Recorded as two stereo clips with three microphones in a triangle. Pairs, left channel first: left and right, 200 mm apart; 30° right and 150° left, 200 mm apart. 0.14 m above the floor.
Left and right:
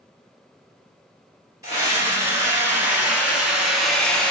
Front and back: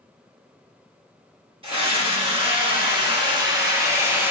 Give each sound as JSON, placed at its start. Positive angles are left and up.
{"t": 1.6, "sound": "a scream", "azimuth_deg": -160, "distance_m": 1.8}